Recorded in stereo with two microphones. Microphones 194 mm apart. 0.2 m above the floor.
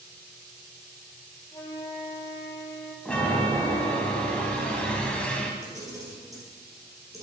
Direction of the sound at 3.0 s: 5° left (ahead or behind).